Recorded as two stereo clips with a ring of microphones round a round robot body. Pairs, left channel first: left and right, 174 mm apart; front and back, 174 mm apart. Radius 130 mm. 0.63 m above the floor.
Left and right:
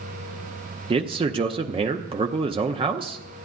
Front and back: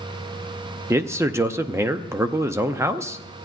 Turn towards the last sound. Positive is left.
turn(degrees=-115)